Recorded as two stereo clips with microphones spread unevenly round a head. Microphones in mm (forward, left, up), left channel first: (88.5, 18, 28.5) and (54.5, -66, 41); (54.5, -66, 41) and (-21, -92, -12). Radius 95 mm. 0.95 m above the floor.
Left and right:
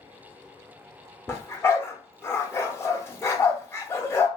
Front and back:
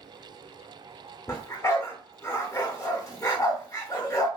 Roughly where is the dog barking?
Ahead.